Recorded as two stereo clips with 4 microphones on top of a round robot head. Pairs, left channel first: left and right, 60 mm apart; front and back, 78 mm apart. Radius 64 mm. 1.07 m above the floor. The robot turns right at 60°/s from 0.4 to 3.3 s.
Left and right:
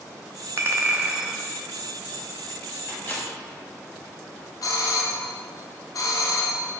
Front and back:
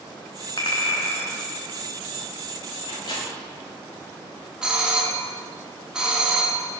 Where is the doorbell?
100° left, 1.1 m.